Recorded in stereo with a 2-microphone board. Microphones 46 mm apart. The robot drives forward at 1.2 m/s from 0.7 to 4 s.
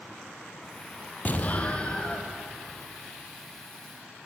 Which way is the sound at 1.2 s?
40° left (ahead or behind).